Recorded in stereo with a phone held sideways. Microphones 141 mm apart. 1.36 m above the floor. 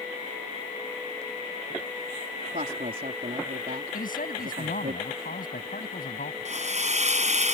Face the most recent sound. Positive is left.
turn(degrees=-55)  # may be behind; listen again after turning